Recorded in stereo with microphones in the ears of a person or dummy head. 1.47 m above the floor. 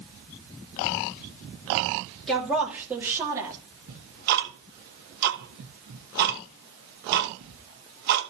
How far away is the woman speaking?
About 3 m.